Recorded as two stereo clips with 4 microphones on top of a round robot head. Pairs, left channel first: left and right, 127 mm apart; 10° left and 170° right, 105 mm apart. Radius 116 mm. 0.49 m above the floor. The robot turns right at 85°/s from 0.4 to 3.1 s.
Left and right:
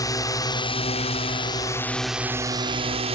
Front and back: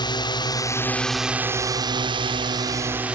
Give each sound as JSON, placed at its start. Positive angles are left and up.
{"t": 0.0, "sound": "a drone", "azimuth_deg": 40}